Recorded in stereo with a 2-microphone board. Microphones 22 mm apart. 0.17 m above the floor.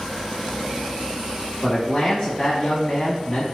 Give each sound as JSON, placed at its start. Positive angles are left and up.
{"t": 1.6, "sound": "a man speaking", "side_deg": 20, "distance_m": 1.1}